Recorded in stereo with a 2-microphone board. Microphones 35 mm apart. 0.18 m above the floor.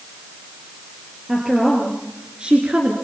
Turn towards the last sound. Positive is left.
turn(degrees=-35)  # may be behind; listen again after turning